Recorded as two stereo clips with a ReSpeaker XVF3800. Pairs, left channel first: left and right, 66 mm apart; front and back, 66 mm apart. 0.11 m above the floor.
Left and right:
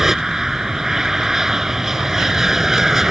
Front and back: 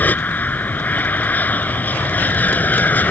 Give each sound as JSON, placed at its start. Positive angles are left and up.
{"t": 0.0, "sound": "an aircraft", "azimuth_deg": -15}